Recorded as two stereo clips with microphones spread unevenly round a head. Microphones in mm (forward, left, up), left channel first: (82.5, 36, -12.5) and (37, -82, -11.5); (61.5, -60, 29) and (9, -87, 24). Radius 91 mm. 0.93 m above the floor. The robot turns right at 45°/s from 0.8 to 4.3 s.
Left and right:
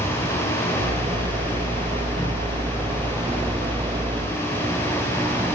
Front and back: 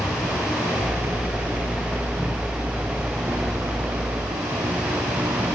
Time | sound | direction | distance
0.0 | an insect | 35° left | 5.5 m